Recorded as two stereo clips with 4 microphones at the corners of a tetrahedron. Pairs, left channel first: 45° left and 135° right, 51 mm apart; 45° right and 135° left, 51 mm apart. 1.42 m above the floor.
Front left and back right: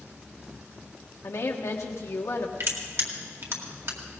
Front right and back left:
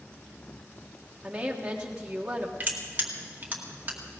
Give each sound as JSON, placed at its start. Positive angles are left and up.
{"t": 1.2, "sound": "a woman speaking", "azimuth_deg": 60, "distance_m": 1.5}
{"t": 2.6, "sound": "crushing", "azimuth_deg": -165, "distance_m": 2.0}